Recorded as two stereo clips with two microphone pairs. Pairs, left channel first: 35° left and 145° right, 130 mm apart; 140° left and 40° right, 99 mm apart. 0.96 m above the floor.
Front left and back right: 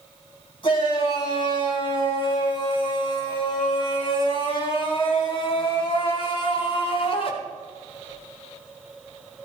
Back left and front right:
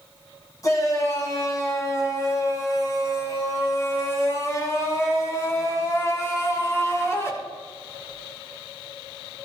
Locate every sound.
0.6 s a shout: 85° left, 7 m; by 7.3 s 80° left, 3 m